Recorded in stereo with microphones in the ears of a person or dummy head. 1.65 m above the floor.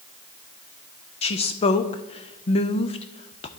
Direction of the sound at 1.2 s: 35° left (ahead or behind).